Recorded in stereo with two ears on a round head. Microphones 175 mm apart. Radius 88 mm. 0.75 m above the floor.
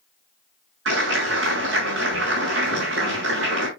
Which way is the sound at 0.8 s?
75° right (ahead or behind).